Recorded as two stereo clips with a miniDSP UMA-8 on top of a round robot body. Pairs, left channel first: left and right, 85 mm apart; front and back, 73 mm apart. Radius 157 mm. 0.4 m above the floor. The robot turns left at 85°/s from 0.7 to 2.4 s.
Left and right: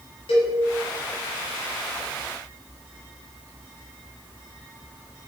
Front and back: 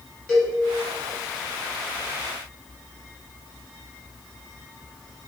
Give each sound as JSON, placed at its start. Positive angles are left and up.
{"t": 0.3, "sound": "a cowbell", "azimuth_deg": 80, "distance_m": 0.9}